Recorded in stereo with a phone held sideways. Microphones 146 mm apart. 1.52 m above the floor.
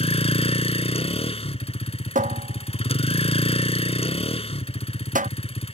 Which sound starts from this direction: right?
A cupboard door, at 2.1 s.